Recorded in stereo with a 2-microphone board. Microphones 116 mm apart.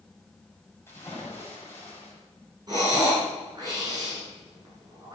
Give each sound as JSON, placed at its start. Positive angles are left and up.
{"t": 0.9, "sound": "a splash", "side_deg": 20, "distance_m": 7.5}
{"t": 2.7, "sound": "breathing", "side_deg": -35, "distance_m": 8.0}